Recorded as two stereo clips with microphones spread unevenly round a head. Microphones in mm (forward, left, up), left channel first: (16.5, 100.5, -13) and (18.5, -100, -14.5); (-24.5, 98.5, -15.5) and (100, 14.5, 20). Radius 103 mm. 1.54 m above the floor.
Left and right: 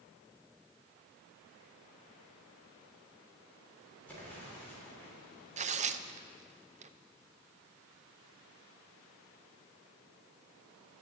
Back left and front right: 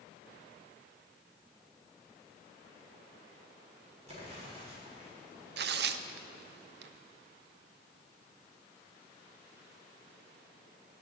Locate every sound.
4.1 s an explosion: 10° left, 6 m
5.6 s tearing paper: 30° right, 0.6 m